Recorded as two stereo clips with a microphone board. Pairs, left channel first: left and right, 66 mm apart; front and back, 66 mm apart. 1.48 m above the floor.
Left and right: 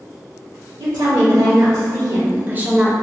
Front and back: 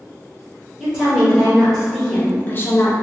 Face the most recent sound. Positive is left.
turn(degrees=0)